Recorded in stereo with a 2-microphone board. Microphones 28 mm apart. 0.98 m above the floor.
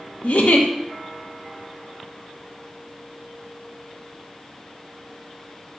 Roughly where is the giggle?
Left.